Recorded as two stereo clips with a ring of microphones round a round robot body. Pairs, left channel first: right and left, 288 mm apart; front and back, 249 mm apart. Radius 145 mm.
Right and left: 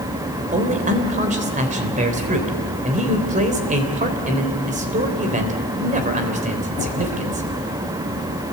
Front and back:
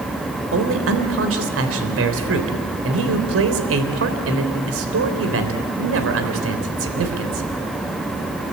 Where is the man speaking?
155° left, 3.5 m.